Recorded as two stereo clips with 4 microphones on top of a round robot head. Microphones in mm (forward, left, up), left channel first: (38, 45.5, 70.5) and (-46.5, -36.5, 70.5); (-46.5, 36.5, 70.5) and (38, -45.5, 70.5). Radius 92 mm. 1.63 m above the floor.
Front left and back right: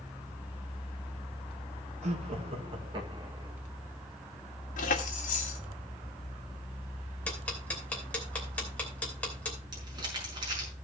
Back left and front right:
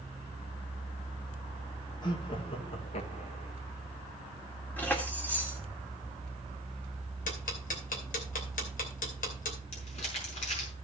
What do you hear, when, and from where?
2.0 s laughter: 170° right, 2 m; by 3.5 s 160° left, 2.5 m
4.8 s keys jangling: 60° left, 1.9 m
7.3 s ticking: 125° left, 2.5 m
9.7 s crumpling: 170° left, 5 m